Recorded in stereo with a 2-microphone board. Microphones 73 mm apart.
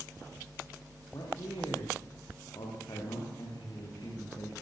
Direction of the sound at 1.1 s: 60° left (ahead or behind).